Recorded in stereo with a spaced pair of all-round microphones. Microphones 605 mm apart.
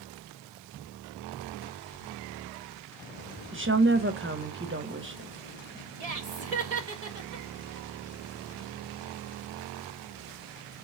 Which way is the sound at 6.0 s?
80° right.